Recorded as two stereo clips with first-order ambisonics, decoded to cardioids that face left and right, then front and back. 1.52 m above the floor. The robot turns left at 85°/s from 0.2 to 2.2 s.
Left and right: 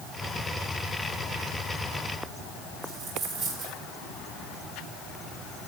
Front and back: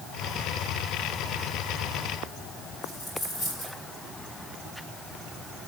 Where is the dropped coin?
45° right, 5.5 m.